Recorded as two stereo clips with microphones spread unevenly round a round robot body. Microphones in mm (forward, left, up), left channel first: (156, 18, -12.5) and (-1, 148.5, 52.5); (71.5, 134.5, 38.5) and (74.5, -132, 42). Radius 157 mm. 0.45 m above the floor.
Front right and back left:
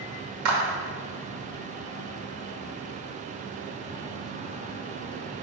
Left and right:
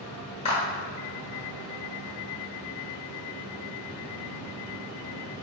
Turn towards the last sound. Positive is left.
turn(degrees=155)